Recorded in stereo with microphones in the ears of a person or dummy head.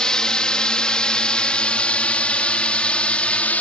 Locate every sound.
0.0 s a drone: 5° left (ahead or behind); by 3.6 s 10° left (ahead or behind)